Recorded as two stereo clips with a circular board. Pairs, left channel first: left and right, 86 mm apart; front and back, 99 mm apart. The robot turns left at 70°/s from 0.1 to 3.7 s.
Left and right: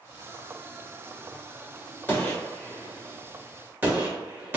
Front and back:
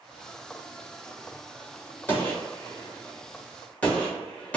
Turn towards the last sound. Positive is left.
turn(degrees=-60)